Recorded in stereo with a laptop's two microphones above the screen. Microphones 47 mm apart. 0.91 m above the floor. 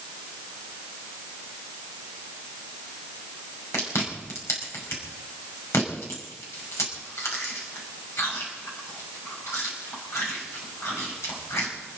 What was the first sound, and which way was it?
Chewing, 80° left.